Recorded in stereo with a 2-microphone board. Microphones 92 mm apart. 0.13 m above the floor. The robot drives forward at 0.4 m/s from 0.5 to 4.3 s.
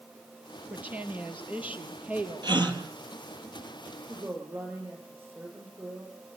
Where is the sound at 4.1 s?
30° right (ahead or behind), 9.5 m.